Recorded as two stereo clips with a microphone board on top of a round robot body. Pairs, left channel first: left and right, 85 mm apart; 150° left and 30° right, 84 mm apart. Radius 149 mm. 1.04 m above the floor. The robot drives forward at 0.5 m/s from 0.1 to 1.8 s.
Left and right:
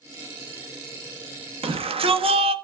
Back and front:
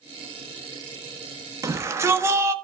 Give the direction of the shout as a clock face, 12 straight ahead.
3 o'clock.